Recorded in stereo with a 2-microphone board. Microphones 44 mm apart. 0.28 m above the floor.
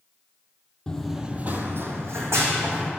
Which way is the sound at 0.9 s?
20° left (ahead or behind).